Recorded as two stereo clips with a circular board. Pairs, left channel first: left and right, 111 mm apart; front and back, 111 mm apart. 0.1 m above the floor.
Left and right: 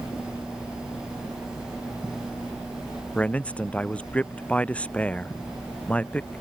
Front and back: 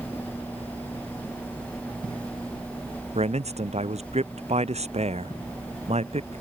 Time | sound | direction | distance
3.1 | a man speaking | 170° left | ?